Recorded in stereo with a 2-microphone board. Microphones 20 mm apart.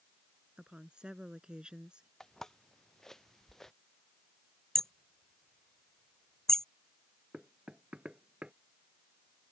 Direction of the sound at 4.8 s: 25° left (ahead or behind).